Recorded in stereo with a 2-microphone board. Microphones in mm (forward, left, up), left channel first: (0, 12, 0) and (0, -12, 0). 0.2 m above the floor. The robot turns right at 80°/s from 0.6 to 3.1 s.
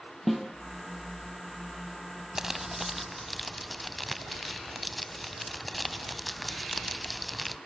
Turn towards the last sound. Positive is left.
turn(degrees=5)  # may be behind; listen again after turning